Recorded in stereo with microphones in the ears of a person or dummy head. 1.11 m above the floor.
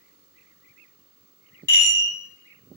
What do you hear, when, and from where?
1.7 s a chime: 15° left (ahead or behind), 0.9 m